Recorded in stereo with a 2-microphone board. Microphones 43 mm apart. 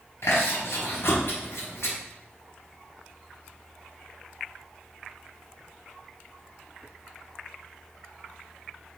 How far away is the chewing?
About 5 m.